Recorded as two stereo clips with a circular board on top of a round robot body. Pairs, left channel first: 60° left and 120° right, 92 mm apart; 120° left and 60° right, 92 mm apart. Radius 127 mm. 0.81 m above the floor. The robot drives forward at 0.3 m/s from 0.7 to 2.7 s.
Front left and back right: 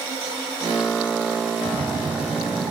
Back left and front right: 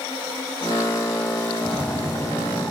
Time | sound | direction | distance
1.6 | a splash | 145° right | 0.6 m